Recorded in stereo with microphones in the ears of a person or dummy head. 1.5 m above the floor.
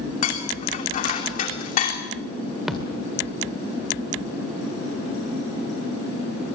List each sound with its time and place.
0.2 s dishes clattering: 40° left (ahead or behind), 2.5 m
2.7 s a thud: centre (ahead or behind), 2 m